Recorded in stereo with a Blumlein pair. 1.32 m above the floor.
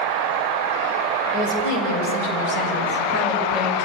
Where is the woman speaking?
50° left, 6.5 m; by 3.9 s 35° left, 6 m.